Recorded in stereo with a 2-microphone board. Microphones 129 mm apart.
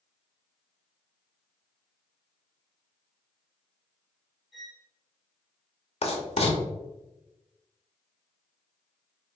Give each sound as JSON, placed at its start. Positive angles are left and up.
{"t": 4.5, "sound": "a violin", "side_deg": 0, "distance_m": 0.9}
{"t": 6.0, "sound": "writing", "side_deg": 50, "distance_m": 0.7}